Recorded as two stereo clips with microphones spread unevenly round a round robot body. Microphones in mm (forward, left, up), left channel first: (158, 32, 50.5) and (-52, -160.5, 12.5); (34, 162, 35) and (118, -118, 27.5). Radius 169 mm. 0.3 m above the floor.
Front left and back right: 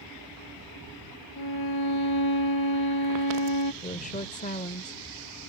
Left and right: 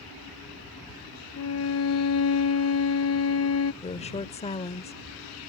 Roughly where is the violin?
Left.